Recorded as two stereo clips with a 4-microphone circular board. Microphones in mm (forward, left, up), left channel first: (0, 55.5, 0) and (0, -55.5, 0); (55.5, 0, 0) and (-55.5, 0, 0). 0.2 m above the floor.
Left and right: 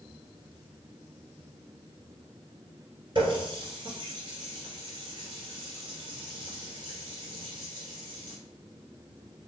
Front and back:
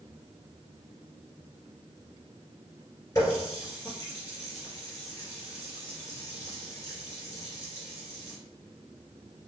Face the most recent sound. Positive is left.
turn(degrees=-55)